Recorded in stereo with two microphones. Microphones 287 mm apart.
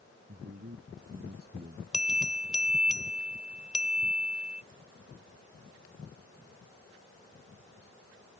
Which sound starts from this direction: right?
A man speaking, at 0.3 s.